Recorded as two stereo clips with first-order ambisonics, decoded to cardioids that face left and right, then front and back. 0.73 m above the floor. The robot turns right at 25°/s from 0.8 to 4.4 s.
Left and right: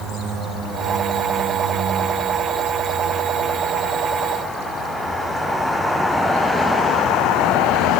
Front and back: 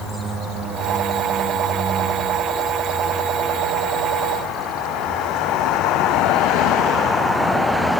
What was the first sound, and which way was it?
Only background noise.